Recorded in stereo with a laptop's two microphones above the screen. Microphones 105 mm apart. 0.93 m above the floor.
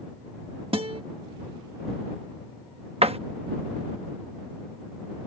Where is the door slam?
70° right (ahead or behind).